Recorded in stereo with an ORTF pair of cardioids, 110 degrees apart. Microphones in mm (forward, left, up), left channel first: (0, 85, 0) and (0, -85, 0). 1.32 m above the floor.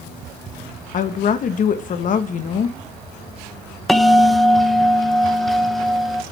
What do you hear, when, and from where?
0.9 s a woman speaking: 45° left, 1.4 m
3.9 s a bell: straight ahead, 1.0 m